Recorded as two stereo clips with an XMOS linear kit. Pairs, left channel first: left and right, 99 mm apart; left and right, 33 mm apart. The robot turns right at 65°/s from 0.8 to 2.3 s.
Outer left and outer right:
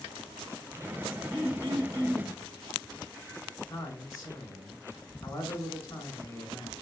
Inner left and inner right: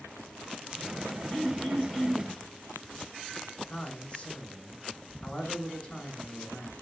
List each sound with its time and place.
1.3 s throat clearing: 80° left, 1.5 m; by 2.3 s 145° left, 1.5 m
3.7 s a man speaking: 40° left (ahead or behind), 2.5 m